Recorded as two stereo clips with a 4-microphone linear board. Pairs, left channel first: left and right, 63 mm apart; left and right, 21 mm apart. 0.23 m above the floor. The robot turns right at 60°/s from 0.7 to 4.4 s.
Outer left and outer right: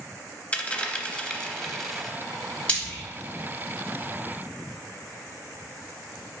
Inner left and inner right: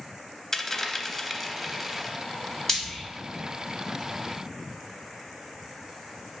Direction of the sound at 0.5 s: 20° left (ahead or behind).